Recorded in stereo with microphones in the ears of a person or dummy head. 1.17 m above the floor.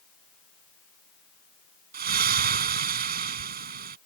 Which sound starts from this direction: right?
A splash, at 1.9 s.